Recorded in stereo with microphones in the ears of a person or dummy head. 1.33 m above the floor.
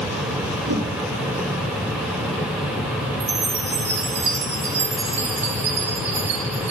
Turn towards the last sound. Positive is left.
turn(degrees=-35)  # may be behind; listen again after turning